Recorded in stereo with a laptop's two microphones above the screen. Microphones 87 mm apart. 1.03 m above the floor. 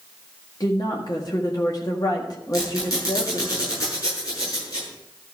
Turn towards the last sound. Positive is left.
turn(degrees=40)  # may be behind; listen again after turning